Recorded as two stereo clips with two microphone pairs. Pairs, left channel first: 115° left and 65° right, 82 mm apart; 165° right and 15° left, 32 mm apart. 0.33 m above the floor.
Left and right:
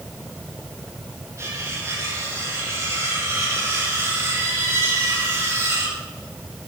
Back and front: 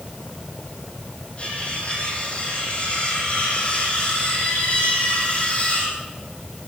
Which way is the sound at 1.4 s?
115° right.